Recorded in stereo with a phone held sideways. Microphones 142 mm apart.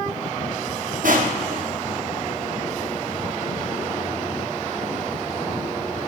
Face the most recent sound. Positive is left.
turn(degrees=-70)  # may be behind; listen again after turning